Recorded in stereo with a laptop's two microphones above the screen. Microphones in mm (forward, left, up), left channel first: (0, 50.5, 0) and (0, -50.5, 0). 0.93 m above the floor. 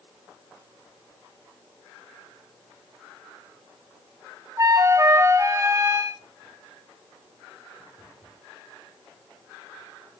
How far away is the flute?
About 1.0 m.